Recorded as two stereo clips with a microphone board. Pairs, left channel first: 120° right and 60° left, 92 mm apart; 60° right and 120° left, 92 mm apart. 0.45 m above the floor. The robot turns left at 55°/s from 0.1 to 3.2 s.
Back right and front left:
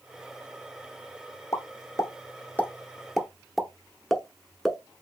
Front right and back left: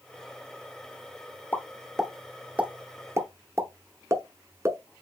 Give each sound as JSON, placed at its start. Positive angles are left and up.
{"t": 1.5, "sound": "a pop", "azimuth_deg": -120, "distance_m": 0.9}